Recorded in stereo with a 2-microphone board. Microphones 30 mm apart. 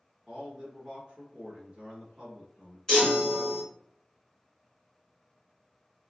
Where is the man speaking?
25° right (ahead or behind), 1.0 m.